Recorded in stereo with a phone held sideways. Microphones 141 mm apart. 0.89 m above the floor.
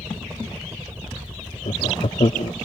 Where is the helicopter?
20° right (ahead or behind); by 2.7 s 10° right (ahead or behind).